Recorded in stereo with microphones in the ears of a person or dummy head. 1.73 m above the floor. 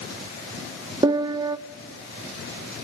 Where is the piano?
25° right (ahead or behind), 0.6 m.